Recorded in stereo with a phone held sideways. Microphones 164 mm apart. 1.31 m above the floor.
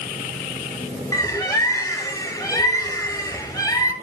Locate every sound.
1.1 s a bird: 20° left (ahead or behind), 2 m